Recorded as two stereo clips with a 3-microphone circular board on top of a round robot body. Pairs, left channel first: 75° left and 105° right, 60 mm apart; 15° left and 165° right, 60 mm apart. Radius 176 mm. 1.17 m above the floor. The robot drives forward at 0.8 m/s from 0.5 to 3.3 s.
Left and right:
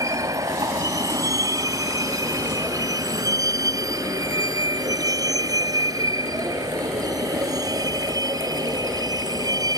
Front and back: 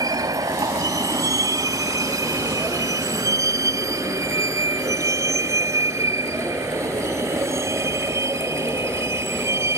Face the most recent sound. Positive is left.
turn(degrees=-120)